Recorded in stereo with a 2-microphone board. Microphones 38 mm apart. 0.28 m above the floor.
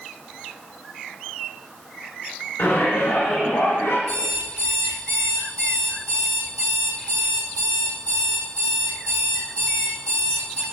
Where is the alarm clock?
40° left (ahead or behind), 5.5 m.